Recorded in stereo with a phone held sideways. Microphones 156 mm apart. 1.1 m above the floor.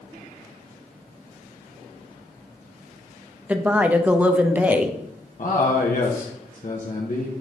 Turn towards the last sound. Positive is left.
turn(degrees=60)  # may be behind; listen again after turning